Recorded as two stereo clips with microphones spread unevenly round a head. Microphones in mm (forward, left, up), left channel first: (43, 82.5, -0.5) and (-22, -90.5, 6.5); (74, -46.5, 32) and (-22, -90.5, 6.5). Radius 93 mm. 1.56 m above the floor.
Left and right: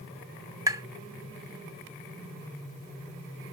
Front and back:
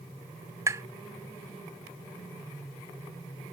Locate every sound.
0.7 s tapping: 105° right